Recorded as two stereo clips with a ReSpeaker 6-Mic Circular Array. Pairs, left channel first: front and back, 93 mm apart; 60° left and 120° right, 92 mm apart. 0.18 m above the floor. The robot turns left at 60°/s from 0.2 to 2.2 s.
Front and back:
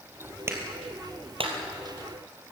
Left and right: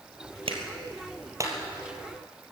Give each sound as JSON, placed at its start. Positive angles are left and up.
{"t": 0.5, "sound": "a clap", "azimuth_deg": -115, "distance_m": 3.5}